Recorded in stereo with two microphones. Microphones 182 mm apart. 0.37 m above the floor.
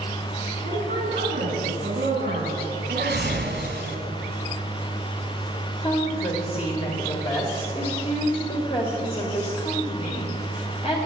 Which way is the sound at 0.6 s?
55° right (ahead or behind).